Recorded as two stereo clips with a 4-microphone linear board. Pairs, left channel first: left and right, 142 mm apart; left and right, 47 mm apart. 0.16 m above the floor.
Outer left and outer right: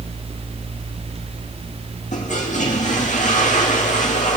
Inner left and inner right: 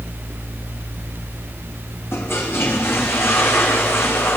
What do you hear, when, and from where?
2.1 s a toilet flushing: 65° left (ahead or behind), 4 m